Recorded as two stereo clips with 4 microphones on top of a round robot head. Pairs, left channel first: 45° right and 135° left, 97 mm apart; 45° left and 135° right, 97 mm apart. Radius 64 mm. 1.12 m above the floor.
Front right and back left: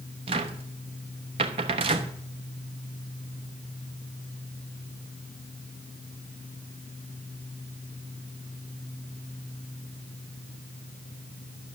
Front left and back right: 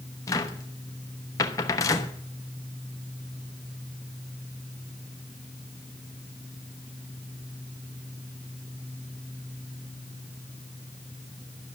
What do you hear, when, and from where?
0.3 s a cupboard door: 100° left, 1.0 m